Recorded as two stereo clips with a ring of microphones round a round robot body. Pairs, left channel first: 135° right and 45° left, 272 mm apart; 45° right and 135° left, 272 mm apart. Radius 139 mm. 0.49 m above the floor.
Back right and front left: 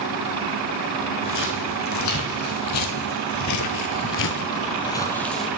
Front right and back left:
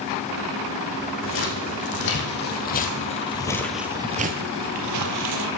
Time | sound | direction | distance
1.2 | footsteps | 90° right | 2.0 m